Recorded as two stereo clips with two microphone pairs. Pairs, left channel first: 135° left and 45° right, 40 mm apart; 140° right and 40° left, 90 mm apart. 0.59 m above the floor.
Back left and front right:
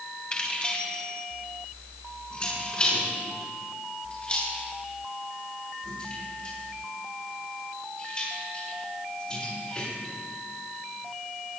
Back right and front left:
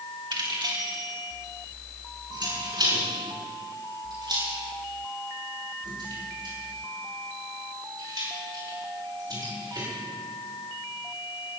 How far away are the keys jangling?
About 3 m.